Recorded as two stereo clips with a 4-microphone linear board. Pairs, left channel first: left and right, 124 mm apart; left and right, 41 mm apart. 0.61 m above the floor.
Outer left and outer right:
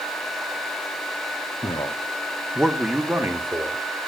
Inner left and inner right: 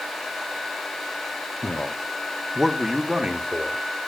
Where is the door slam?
No door slam in this recording.